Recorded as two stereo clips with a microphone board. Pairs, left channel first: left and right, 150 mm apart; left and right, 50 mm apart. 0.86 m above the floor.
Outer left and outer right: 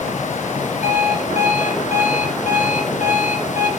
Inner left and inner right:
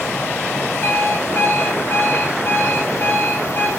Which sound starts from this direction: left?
An alarm clock, at 0.8 s.